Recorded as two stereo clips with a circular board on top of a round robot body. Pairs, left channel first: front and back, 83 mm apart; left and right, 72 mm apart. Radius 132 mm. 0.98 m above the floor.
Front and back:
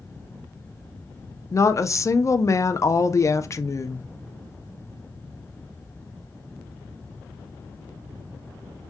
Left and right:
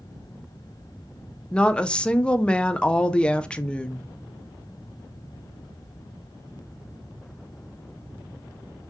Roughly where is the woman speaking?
Ahead.